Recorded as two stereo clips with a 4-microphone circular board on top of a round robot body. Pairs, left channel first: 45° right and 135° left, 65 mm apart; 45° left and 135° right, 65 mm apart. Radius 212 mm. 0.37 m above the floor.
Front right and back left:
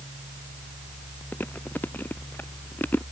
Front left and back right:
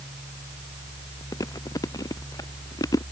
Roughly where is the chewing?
Ahead.